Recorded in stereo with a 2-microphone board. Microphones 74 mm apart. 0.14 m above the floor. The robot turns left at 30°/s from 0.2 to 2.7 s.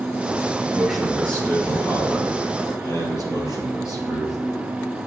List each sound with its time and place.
0.7 s a man speaking: 175° right, 3.5 m; by 4.4 s 125° left, 3.5 m